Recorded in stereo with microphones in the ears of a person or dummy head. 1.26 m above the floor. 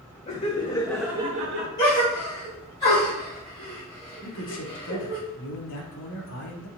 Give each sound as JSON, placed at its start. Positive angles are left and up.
{"t": 0.3, "sound": "laughter", "side_deg": 30, "distance_m": 1.3}
{"t": 1.8, "sound": "a gasp", "side_deg": 15, "distance_m": 1.9}
{"t": 4.2, "sound": "a man speaking", "side_deg": 65, "distance_m": 1.1}